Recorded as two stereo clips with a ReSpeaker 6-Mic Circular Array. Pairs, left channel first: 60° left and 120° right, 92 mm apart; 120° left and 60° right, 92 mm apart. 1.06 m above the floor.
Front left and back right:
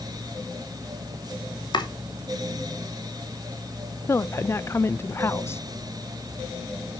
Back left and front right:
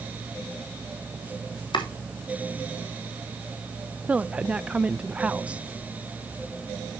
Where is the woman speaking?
15° left, 0.6 m.